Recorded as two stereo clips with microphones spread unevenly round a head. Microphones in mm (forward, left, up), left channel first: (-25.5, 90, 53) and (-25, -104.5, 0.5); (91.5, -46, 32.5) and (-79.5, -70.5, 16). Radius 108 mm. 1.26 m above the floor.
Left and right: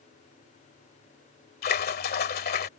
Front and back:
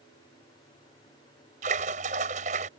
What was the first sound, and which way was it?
A splash, 130° left.